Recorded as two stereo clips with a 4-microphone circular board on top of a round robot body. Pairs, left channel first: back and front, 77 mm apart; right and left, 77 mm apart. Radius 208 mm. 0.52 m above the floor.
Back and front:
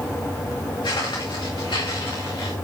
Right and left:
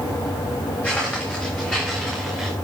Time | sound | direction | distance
0.8 | footsteps | 160° right | 4.5 m